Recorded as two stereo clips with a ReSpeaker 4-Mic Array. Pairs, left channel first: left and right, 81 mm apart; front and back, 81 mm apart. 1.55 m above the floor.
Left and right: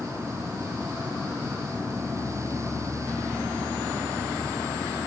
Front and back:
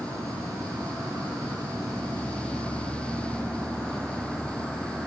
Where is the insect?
125° right, 2.5 m.